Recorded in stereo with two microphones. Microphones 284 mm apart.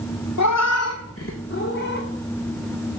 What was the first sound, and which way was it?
A cat meowing, 75° left (ahead or behind).